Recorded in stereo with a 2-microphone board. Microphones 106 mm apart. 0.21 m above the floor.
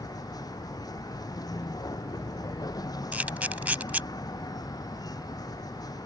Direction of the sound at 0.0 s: 35° left (ahead or behind).